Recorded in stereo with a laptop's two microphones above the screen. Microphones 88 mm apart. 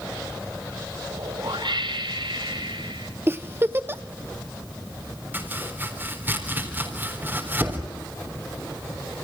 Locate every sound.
1.1 s a whoosh: 75° right (ahead or behind), 5.5 m
3.3 s a giggle: 30° right (ahead or behind), 0.6 m
5.3 s chopping: 25° right (ahead or behind), 4 m